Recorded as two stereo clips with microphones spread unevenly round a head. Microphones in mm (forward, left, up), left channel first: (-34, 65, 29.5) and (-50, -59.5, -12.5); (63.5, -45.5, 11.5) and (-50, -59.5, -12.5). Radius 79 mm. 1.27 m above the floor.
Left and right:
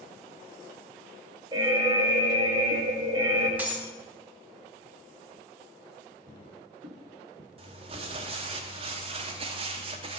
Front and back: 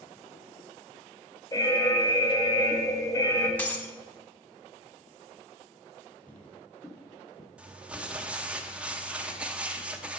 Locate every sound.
1.5 s an alarm: 60° right, 1.1 m
3.6 s breaking glass: 10° left, 0.9 m
6.3 s footsteps: 60° right, 2.5 m; by 7.5 s 15° right, 1.7 m
7.6 s crumpling: 75° right, 0.7 m